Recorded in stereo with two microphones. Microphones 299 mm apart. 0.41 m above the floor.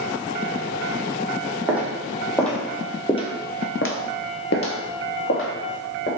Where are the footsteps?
5° right (ahead or behind), 1.2 m; by 6.1 s 40° left (ahead or behind), 1.2 m.